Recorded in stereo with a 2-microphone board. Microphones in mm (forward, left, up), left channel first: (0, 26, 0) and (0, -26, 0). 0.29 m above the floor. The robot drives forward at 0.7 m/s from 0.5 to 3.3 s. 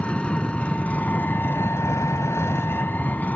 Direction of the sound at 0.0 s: 25° left (ahead or behind).